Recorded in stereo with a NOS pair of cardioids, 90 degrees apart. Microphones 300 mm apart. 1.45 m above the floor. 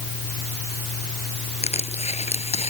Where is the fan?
60° left.